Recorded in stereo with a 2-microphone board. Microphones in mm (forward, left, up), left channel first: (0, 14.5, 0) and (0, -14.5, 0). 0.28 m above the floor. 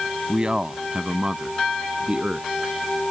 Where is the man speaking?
25° right (ahead or behind); by 2.5 s 35° right (ahead or behind).